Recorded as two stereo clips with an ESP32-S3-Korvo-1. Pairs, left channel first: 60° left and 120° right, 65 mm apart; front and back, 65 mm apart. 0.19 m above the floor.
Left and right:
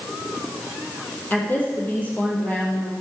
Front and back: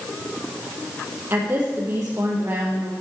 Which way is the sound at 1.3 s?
120° left.